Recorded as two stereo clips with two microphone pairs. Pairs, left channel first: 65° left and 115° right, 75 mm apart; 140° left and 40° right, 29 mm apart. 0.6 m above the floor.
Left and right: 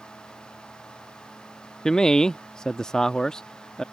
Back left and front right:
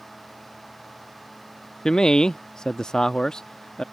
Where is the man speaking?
135° left.